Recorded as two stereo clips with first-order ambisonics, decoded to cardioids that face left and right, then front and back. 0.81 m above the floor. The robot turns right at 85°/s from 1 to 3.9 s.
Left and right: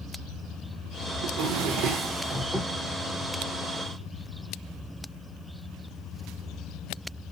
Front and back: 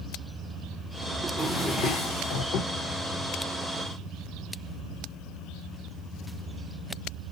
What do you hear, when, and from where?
1.2 s a drawer: 110° right, 0.8 m; by 2.7 s 20° left, 0.8 m